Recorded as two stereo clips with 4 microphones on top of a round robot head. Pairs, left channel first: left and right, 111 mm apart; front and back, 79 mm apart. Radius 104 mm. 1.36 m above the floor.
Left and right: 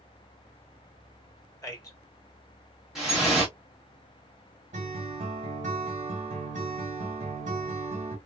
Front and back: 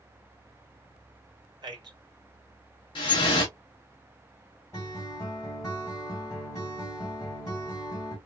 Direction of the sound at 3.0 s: Straight ahead.